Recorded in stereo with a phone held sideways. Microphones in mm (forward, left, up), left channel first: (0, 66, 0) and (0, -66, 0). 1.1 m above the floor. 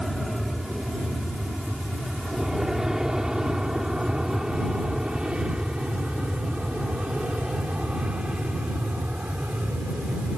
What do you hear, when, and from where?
0.0 s an aircraft: centre (ahead or behind); by 10.4 s 10° right (ahead or behind)